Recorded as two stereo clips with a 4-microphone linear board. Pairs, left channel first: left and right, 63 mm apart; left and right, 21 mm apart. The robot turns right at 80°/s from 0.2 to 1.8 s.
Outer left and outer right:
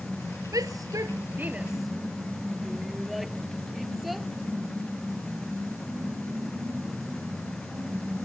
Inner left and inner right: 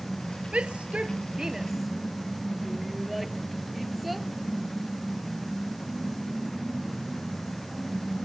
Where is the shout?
75° right (ahead or behind); by 4.3 s centre (ahead or behind).